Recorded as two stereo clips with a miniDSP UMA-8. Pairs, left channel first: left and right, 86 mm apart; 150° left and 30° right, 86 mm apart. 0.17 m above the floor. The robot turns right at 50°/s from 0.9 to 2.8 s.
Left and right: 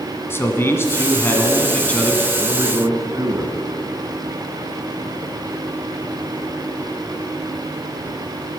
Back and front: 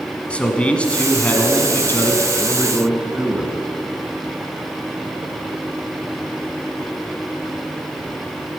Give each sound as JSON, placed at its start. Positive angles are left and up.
{"t": 0.3, "sound": "a man speaking", "azimuth_deg": 90, "distance_m": 1.4}
{"t": 2.4, "sound": "a man speaking", "azimuth_deg": -130, "distance_m": 1.6}